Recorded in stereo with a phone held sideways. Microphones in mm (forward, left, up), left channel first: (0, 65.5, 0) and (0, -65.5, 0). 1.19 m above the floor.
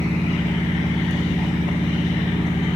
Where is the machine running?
70° left (ahead or behind), 3 m.